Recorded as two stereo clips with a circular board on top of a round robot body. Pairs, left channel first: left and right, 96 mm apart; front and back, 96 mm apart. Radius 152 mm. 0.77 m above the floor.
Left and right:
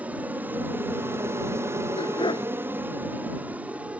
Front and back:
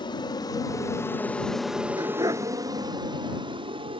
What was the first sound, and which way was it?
An aircraft, 20° right.